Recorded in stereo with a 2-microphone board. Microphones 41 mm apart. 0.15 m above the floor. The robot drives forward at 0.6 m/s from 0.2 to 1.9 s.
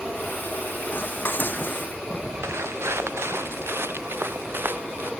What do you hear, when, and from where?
0.9 s dishes clattering: 50° left (ahead or behind)
2.4 s footsteps: 80° right; by 5.1 s 55° right (ahead or behind)